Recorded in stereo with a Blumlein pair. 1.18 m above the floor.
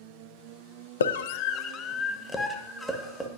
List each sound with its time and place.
1.0 s a scream: 65° left, 0.6 m; by 3.3 s 5° right, 1.6 m